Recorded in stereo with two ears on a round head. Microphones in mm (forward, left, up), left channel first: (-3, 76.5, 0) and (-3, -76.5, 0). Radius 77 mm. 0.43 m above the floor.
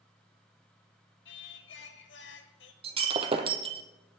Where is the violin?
I don't hear a violin.